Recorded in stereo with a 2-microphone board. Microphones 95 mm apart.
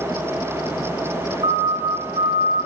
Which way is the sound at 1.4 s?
65° right (ahead or behind).